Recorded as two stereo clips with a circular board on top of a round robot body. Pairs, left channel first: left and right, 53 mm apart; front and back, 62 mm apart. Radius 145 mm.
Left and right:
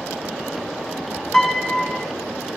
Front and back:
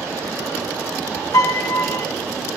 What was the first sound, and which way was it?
A piano, 5° right.